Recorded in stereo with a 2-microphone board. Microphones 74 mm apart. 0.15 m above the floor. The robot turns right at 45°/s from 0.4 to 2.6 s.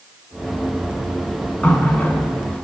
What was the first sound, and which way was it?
A running tap, 20° left (ahead or behind).